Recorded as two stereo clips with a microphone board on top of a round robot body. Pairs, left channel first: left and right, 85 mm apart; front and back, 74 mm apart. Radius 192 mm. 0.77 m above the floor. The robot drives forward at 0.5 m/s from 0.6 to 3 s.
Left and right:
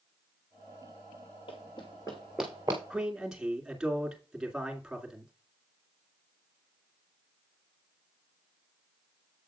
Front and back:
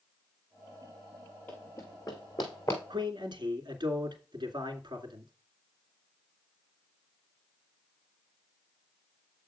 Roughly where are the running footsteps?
Left.